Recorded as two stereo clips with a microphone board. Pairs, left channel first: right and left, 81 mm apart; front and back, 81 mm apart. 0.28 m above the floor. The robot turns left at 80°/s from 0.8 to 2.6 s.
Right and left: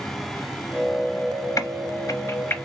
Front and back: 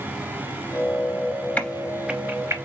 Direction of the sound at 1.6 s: 65° right.